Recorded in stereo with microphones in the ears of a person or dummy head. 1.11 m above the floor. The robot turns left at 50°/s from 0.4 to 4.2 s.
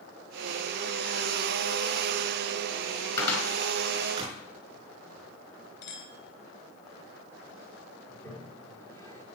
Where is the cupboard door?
20° left (ahead or behind), 4.5 m; by 4.4 s 30° right (ahead or behind), 4.5 m.